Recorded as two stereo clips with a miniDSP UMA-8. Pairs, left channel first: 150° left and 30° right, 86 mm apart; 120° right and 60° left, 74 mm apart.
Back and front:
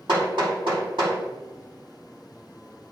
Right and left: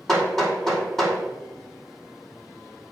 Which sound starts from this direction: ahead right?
Hammering, at 0.1 s.